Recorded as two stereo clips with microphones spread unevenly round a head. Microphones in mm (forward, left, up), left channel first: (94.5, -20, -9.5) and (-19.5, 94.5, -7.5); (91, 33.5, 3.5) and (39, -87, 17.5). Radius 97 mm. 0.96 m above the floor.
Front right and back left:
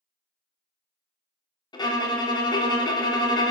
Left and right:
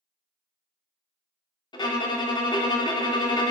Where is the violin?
15° left, 0.7 m.